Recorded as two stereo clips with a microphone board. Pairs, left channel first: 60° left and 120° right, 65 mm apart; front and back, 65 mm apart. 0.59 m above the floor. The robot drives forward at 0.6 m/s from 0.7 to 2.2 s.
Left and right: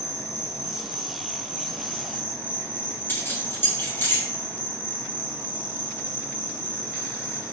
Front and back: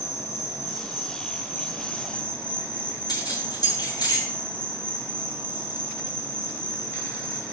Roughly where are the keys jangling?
Ahead.